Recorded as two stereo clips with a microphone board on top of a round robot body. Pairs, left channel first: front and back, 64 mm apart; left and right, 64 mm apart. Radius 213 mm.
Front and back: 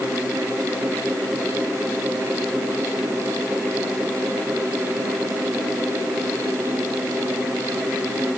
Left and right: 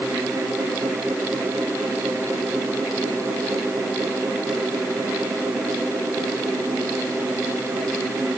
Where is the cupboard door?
I don't hear a cupboard door.